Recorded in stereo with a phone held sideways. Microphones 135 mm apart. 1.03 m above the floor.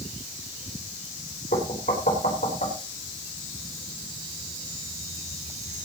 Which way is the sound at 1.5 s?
75° left (ahead or behind).